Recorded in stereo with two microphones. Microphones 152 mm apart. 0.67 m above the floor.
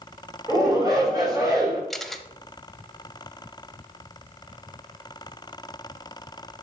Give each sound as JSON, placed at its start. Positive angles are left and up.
{"t": 0.5, "sound": "a shout", "side_deg": -25, "distance_m": 3.0}
{"t": 1.9, "sound": "a camera shutter", "side_deg": 0, "distance_m": 0.6}